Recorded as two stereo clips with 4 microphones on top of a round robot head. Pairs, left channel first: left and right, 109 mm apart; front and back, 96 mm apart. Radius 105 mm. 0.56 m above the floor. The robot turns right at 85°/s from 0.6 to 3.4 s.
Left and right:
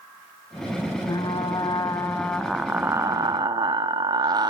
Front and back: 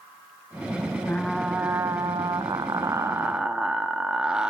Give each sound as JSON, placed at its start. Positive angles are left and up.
{"t": 1.1, "sound": "frying", "azimuth_deg": 55, "distance_m": 1.1}